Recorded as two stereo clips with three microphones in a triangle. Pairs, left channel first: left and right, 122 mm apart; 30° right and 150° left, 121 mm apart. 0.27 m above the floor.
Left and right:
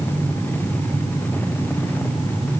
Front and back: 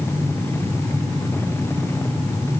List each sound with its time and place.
Only background noise.